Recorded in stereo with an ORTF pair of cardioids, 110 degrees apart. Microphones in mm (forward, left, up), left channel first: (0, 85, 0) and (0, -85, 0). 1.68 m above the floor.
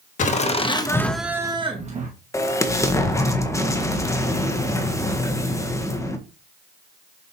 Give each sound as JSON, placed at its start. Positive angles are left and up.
{"t": 0.2, "sound": "laughter", "azimuth_deg": 45, "distance_m": 1.7}
{"t": 2.3, "sound": "an explosion", "azimuth_deg": 20, "distance_m": 1.4}